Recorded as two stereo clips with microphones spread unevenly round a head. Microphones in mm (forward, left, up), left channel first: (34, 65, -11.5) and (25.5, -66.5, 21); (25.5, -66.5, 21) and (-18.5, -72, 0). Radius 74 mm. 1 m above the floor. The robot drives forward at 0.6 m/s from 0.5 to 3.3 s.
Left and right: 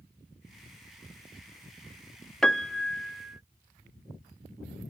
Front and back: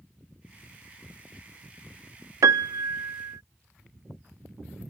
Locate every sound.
2.4 s a piano: 175° right; by 3.4 s straight behind